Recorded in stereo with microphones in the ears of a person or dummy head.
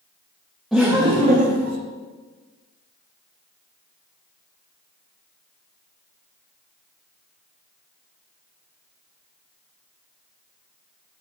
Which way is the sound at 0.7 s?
Centre (ahead or behind).